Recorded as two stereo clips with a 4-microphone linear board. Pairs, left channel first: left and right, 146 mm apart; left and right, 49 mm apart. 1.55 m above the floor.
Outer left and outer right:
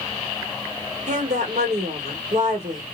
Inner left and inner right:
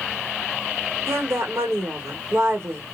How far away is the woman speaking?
About 1.4 m.